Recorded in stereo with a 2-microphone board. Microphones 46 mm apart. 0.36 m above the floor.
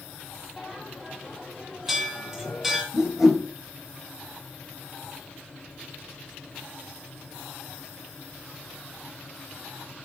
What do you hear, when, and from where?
0.6 s a bell: 5° right (ahead or behind), 1.9 m
2.9 s a whoosh: 10° right (ahead or behind), 3 m